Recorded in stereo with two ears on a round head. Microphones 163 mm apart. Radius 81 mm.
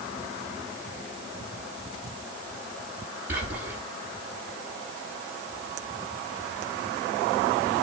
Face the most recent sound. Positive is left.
turn(degrees=-10)  # may be behind; listen again after turning